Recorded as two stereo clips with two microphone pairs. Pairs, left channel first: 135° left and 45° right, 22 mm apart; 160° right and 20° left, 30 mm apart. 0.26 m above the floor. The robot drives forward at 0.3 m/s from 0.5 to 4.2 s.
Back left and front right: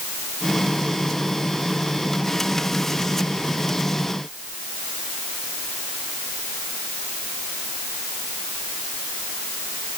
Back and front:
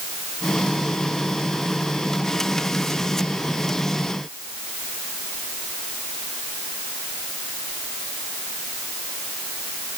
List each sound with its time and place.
Only background noise.